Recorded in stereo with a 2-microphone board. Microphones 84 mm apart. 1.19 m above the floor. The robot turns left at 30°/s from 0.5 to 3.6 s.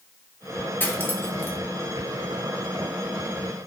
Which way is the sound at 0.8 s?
25° left (ahead or behind).